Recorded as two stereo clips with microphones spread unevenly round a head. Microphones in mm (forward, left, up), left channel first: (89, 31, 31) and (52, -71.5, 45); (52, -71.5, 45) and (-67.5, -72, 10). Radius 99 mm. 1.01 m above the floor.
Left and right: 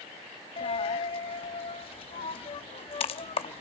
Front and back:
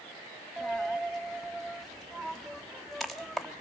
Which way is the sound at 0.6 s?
70° left.